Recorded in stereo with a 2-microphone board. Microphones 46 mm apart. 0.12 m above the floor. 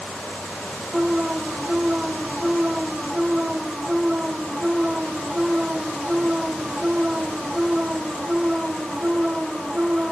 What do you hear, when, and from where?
0.9 s an alarm: 20° right (ahead or behind)